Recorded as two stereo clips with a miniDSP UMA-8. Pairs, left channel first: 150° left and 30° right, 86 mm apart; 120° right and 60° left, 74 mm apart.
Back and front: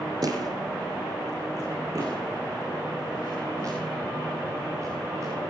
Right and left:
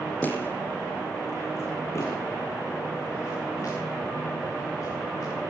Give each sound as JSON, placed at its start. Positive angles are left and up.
{"t": 0.2, "sound": "footsteps", "azimuth_deg": -55, "distance_m": 2.5}